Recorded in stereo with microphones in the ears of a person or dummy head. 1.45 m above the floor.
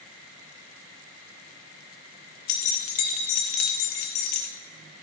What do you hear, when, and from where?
2.5 s keys jangling: 45° left (ahead or behind), 0.7 m